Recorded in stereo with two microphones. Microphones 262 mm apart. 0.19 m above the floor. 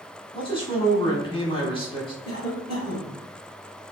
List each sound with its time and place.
0.3 s a man speaking: 20° left (ahead or behind), 1.4 m
2.2 s a cough: 15° right (ahead or behind), 1.9 m